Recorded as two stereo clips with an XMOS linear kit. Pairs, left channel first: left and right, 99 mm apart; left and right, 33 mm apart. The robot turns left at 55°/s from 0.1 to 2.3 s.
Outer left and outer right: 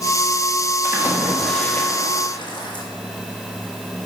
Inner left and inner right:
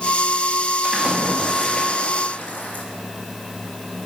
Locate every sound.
0.8 s a splash: 150° right, 1.2 m; by 2.9 s 130° left, 1.2 m